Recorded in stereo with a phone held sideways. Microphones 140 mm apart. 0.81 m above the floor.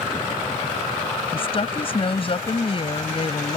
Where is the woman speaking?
40° left (ahead or behind).